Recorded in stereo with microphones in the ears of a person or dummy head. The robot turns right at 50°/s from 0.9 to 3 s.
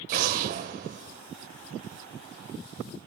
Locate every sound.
0.1 s an explosion: 55° right (ahead or behind), 2 m; by 1.2 s 40° right (ahead or behind), 2 m